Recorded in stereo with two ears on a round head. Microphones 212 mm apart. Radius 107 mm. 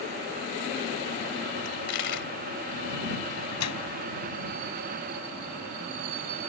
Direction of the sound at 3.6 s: 85° left.